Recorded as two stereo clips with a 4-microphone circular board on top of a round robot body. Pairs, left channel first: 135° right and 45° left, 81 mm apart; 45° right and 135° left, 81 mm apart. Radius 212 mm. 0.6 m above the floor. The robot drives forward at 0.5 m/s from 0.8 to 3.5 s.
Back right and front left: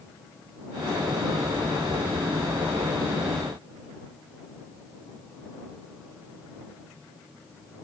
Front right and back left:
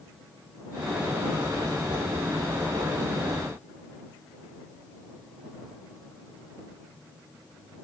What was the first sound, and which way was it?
Only background noise.